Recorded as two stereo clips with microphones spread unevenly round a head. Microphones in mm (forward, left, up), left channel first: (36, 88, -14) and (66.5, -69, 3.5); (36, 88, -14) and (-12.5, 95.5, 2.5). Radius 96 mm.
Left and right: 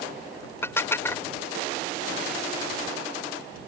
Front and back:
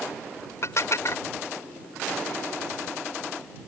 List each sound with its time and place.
0.6 s dishes clattering: 25° left